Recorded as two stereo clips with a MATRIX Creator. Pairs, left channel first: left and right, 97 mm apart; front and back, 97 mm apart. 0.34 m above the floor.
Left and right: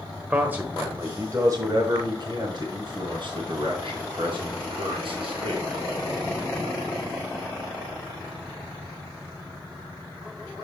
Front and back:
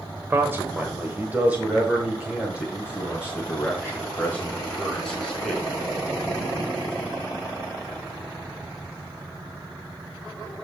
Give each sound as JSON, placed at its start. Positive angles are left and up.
{"t": 0.3, "sound": "a man speaking", "azimuth_deg": -145, "distance_m": 1.2}